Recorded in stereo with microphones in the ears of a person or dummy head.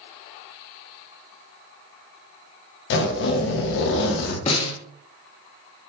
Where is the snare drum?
30° left (ahead or behind), 0.8 m.